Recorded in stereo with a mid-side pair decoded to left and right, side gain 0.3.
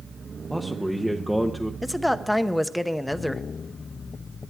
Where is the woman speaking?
5° left, 0.9 m.